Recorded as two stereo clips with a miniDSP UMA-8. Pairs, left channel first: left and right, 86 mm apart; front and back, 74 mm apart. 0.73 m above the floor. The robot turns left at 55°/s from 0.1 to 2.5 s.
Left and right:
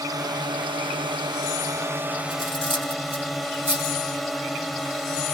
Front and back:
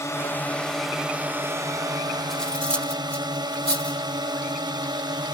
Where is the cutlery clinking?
85° left; by 4.0 s 75° left.